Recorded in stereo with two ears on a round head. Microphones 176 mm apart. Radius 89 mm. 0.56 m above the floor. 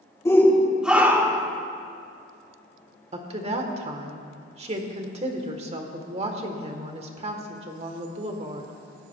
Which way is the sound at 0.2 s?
15° left (ahead or behind).